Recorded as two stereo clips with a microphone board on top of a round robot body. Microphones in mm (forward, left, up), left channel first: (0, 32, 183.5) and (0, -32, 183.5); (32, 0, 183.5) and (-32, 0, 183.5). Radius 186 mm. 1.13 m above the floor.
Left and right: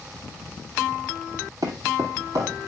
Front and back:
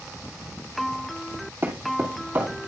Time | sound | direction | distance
1.6 | footsteps | 115° right | 2.5 m